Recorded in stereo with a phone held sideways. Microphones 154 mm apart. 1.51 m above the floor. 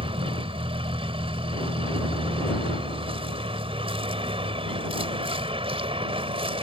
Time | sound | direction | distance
0.0 | a vehicle | 35° right (ahead or behind) | ?